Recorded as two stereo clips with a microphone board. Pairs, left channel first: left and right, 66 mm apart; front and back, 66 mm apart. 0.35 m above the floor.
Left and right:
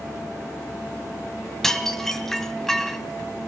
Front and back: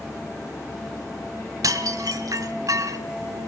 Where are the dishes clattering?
170° left, 1.3 m.